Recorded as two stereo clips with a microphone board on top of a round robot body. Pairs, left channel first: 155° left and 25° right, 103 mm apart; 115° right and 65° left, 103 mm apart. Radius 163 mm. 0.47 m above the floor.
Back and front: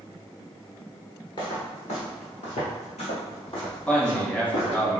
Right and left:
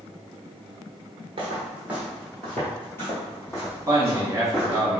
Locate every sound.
1.4 s footsteps: 115° left, 0.6 m; by 4.8 s 165° right, 1.9 m
3.9 s a man speaking: 90° left, 1.4 m